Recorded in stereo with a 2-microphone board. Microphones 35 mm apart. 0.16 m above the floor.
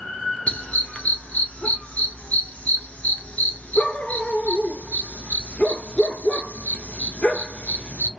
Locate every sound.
0.5 s a dog barking: 40° left (ahead or behind), 1.0 m